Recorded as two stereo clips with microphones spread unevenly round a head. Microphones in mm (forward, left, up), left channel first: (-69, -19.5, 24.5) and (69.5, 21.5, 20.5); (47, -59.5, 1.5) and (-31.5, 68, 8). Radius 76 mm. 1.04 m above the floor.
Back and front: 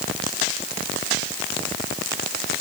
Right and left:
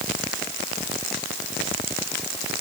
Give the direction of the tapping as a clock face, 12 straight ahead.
No tapping in this recording.